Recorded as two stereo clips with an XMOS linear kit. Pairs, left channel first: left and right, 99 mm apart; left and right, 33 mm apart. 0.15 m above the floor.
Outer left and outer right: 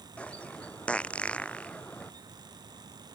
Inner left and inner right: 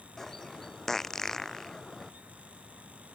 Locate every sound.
0.2 s a bird: 10° left (ahead or behind)